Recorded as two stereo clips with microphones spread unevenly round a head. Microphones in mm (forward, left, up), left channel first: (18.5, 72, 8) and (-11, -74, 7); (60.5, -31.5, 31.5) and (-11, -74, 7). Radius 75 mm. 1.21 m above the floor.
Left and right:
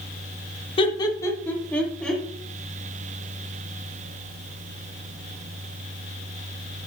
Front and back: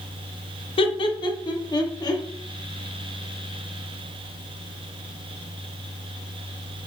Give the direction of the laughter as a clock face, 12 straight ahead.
11 o'clock.